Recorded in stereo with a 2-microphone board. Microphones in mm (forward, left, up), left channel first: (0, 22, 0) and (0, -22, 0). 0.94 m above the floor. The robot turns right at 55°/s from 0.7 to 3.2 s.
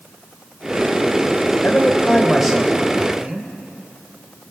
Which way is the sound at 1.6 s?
135° left.